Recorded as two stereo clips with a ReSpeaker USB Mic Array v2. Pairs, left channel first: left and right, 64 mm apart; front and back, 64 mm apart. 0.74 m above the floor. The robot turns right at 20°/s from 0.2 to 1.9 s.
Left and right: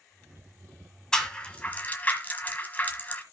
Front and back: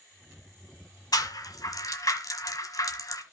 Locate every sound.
1.1 s a rattle: 10° left, 1.5 m; by 3.2 s 25° left, 1.5 m